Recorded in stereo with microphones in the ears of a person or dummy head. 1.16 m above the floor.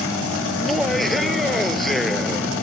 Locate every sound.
0.5 s laughter: 5° left (ahead or behind)